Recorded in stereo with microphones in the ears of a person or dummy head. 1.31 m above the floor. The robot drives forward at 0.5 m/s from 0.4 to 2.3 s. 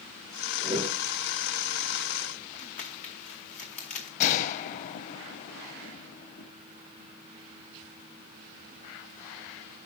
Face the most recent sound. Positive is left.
turn(degrees=45)  # may be behind; listen again after turning